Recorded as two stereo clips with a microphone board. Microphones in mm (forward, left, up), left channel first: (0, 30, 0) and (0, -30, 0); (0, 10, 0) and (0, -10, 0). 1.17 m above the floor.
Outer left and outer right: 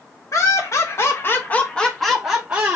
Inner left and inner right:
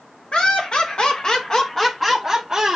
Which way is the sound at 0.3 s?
60° left (ahead or behind).